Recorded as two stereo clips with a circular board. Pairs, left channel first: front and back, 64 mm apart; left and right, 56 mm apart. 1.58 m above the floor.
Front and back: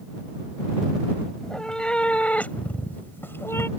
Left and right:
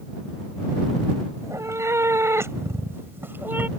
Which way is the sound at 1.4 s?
80° right.